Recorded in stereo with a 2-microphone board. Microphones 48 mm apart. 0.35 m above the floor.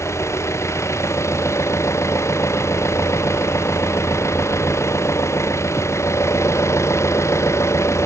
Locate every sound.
0.0 s an engine running: 70° left (ahead or behind)